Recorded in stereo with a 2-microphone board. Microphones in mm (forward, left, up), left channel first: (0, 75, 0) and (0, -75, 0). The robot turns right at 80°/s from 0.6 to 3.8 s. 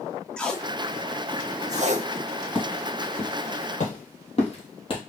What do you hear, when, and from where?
0.4 s tape being pulled: 5° left (ahead or behind), 0.5 m; by 2.1 s 45° right (ahead or behind), 0.5 m
2.5 s footsteps: centre (ahead or behind), 2.5 m; by 5.0 s 35° left (ahead or behind), 1.5 m